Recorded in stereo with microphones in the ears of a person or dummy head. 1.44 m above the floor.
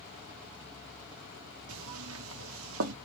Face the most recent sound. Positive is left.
turn(degrees=-75)  # may be behind; listen again after turning